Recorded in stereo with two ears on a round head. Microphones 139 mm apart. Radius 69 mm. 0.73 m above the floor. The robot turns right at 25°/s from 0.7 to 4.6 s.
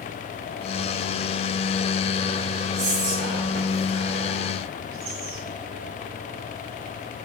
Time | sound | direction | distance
2.8 | whispering | 65° right (ahead or behind) | 3 m